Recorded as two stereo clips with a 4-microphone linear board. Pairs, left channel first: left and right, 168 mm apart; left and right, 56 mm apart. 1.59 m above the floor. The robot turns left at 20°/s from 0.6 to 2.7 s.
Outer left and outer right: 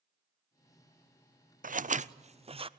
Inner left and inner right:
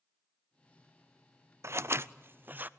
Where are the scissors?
55° right (ahead or behind), 0.5 m; by 2.7 s 35° right (ahead or behind), 0.5 m.